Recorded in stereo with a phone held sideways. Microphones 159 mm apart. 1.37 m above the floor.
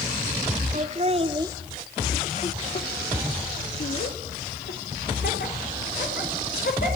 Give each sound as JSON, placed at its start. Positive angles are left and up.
{"t": 0.7, "sound": "laughter", "side_deg": -50, "distance_m": 1.3}